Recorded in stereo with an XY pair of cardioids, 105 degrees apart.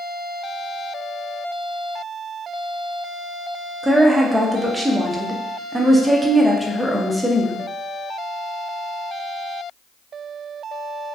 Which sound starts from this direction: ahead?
A woman speaking, at 3.8 s.